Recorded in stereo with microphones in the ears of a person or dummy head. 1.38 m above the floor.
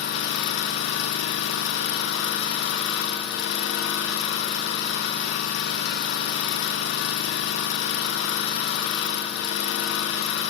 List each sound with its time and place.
0.0 s an engine running: 70° left (ahead or behind), 1.0 m